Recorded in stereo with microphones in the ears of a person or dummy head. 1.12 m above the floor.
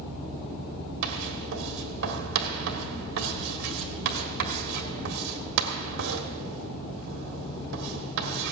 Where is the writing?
60° right (ahead or behind), 1.6 m.